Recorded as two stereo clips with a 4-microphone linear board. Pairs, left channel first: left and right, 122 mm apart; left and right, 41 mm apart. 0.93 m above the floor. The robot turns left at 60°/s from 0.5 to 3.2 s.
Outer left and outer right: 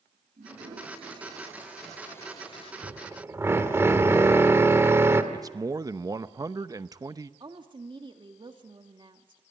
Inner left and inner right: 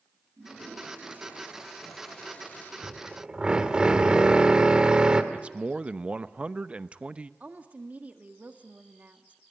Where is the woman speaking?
40° right (ahead or behind), 1.8 m.